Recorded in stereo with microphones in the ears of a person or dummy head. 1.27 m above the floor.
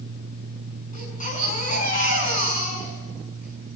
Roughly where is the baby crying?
Left.